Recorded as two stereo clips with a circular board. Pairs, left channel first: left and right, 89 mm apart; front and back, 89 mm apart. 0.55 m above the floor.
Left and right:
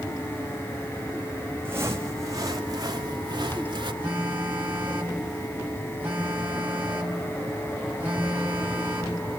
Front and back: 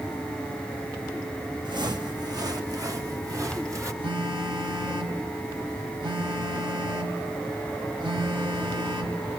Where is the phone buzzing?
160° right, 3 m.